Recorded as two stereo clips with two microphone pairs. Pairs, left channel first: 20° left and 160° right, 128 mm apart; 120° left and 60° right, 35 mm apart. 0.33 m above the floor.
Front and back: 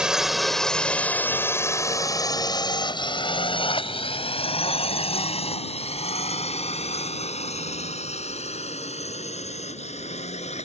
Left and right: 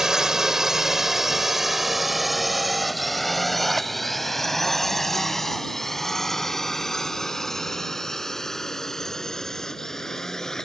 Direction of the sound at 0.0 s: 90° right.